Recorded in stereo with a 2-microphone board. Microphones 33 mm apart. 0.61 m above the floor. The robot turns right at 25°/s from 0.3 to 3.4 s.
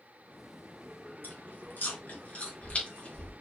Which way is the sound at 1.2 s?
80° left.